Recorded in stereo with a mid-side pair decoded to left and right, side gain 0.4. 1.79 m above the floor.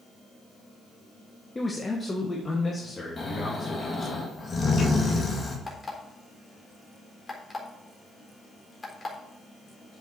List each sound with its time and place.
1.6 s a man speaking: 25° left, 1.4 m
3.2 s snoring: 35° left, 2.5 m
5.7 s an alarm clock: 30° left, 3.5 m